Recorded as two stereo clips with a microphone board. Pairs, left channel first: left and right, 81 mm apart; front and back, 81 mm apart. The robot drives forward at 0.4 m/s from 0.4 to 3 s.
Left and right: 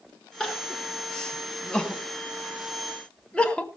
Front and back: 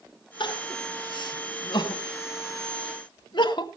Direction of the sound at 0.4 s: 5° left.